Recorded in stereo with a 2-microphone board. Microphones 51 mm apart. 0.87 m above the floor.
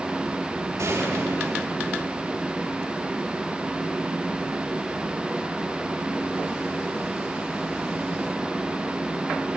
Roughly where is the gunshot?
Right.